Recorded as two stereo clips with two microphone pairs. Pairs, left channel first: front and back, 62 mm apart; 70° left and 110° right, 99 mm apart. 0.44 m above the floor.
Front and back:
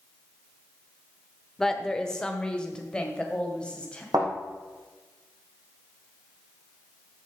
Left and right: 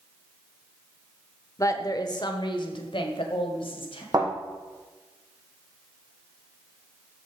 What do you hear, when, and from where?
1.6 s a woman speaking: 80° left, 1.0 m; by 4.0 s 75° left, 2.5 m
4.1 s a thud: 155° right, 4 m